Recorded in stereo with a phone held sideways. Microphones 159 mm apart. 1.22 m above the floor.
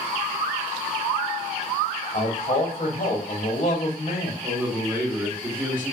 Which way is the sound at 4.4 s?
25° right (ahead or behind).